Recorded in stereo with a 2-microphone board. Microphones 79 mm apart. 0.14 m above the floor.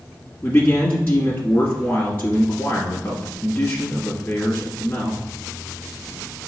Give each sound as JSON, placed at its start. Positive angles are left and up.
{"t": 0.4, "sound": "a man speaking", "side_deg": 25, "distance_m": 1.5}